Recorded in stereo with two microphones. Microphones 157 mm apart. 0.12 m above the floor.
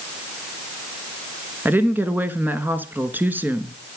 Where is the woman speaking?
10° right (ahead or behind), 1.2 m.